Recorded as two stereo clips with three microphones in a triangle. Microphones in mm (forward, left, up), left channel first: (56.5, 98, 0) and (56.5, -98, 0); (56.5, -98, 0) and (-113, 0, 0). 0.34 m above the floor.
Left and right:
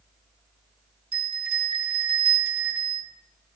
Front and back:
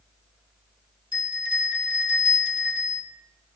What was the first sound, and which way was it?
A bell, 150° right.